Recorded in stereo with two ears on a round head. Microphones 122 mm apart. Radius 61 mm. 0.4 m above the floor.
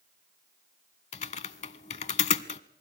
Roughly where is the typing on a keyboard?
Left.